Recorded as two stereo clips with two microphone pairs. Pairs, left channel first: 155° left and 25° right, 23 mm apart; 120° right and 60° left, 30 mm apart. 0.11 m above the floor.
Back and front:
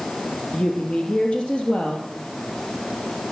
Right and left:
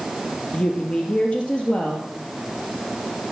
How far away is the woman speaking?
About 2.5 m.